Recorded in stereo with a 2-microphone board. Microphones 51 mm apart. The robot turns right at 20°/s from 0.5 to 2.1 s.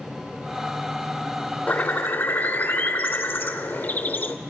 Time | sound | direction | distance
1.7 | a bird | 30° left (ahead or behind) | 0.7 m